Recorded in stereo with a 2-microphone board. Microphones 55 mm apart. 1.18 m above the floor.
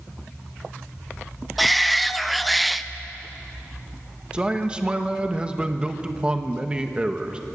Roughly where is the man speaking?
Centre.